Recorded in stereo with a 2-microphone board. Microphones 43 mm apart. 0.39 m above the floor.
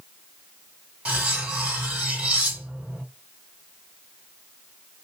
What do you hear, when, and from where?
1.1 s cutlery clinking: 30° right (ahead or behind), 1.4 m